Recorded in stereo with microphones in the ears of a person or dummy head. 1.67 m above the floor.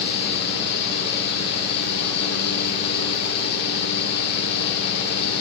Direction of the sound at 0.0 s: 65° left (ahead or behind).